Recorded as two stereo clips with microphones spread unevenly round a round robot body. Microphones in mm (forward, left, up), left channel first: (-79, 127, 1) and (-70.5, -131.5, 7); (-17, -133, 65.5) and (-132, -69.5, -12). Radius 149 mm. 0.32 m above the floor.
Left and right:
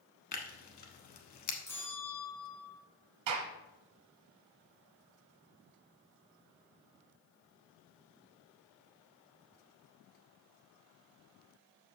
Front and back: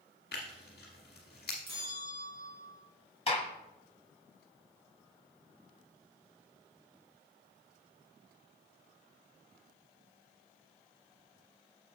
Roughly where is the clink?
I don't hear a clink.